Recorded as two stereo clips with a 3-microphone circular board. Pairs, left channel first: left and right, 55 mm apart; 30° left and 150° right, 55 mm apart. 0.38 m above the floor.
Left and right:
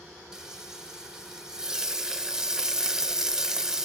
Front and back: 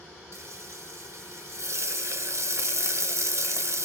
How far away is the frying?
About 0.5 m.